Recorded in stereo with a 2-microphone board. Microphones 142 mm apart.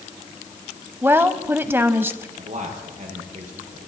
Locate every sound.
1.0 s a woman speaking: 15° right (ahead or behind), 1.0 m
2.4 s a man speaking: 65° right (ahead or behind), 5.5 m